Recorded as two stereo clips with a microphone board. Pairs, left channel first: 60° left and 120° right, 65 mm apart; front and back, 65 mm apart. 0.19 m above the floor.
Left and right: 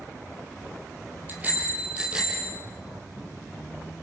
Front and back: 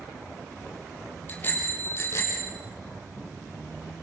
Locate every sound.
1.3 s a bicycle bell: 60° right, 4 m; by 2.5 s 40° right, 4.5 m